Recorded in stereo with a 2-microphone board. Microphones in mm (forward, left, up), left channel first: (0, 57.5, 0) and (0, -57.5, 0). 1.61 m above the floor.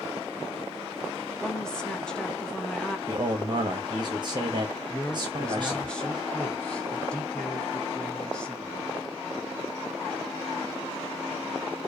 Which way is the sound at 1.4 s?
5° left (ahead or behind).